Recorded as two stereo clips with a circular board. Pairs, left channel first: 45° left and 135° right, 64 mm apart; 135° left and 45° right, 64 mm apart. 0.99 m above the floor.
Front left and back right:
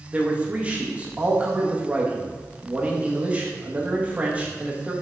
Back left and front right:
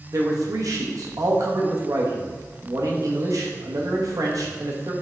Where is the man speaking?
70° right, 1.3 m.